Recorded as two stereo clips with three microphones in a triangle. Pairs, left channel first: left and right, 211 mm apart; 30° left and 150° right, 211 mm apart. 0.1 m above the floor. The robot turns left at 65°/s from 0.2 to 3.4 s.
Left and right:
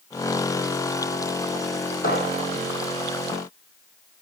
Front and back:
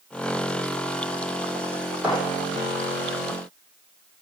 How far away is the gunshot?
About 3.5 m.